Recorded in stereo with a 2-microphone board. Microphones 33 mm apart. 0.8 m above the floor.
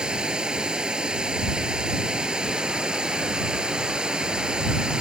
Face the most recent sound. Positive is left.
turn(degrees=-25)  # may be behind; listen again after turning